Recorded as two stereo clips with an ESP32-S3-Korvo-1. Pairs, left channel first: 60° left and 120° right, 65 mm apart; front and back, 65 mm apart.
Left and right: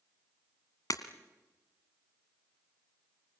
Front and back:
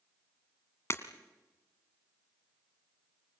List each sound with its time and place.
0.9 s breaking glass: 45° left, 1.7 m